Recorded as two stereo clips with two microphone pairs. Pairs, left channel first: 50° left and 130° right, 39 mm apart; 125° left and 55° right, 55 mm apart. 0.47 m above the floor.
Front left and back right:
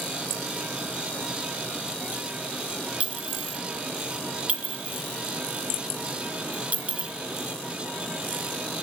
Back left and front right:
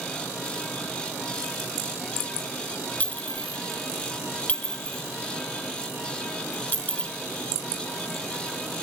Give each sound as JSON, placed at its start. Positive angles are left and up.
{"t": 3.0, "sound": "a clink", "azimuth_deg": 180, "distance_m": 0.6}